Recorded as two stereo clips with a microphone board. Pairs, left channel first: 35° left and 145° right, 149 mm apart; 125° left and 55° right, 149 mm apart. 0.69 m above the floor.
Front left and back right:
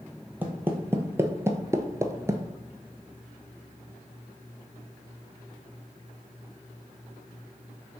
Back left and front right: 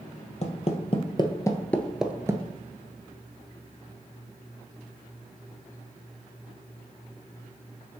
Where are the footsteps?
140° left, 1.2 m; by 2.5 s 90° right, 0.7 m.